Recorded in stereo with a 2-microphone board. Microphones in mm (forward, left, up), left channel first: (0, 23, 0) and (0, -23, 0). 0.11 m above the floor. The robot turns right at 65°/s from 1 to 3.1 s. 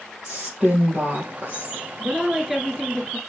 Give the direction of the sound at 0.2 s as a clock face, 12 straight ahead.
5 o'clock.